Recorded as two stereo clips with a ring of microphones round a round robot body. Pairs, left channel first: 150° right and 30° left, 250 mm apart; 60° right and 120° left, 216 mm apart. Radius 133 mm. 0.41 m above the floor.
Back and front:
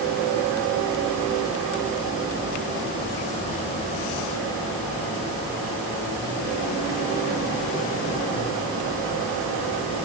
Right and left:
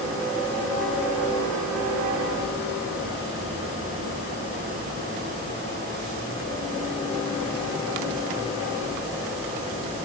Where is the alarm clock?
I don't hear an alarm clock.